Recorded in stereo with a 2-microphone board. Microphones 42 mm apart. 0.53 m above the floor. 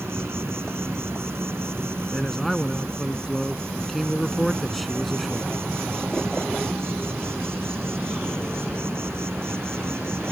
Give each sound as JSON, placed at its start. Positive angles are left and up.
{"t": 0.0, "sound": "an insect", "side_deg": -80}
{"t": 2.1, "sound": "a man speaking", "side_deg": 0}